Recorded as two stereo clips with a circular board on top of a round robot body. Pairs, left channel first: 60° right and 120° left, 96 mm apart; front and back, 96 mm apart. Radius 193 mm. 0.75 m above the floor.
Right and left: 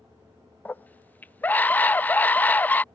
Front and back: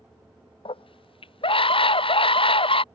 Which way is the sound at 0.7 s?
15° left.